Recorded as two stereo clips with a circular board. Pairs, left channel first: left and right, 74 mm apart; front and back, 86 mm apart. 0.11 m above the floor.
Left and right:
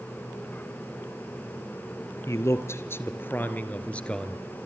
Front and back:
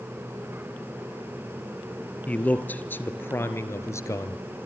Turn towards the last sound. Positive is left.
turn(degrees=15)